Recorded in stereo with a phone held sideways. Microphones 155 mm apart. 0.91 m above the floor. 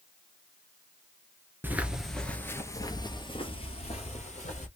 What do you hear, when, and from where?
1.6 s footsteps: 10° right (ahead or behind), 0.9 m; by 4.7 s 50° left (ahead or behind), 1.7 m